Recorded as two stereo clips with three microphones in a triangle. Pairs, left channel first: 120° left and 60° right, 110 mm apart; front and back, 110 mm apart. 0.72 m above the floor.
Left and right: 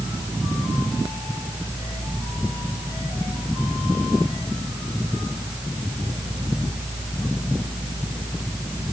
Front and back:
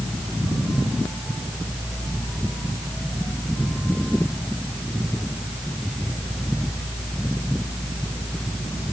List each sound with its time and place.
Only background noise.